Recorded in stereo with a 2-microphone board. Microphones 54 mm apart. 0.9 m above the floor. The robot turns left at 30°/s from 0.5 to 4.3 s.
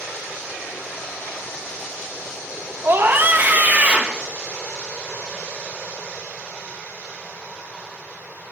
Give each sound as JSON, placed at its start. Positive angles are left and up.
{"t": 2.8, "sound": "a scream", "azimuth_deg": -115, "distance_m": 0.8}